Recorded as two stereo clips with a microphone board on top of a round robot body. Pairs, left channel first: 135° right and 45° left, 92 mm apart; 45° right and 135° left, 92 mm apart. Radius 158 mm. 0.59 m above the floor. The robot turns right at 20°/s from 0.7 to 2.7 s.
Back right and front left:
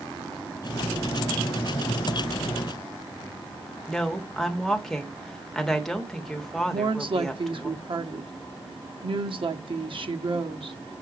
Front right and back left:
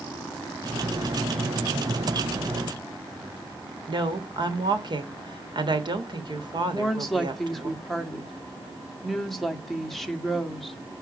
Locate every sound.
3.9 s a woman speaking: 140° left, 1.7 m
6.7 s a woman speaking: 45° left, 1.4 m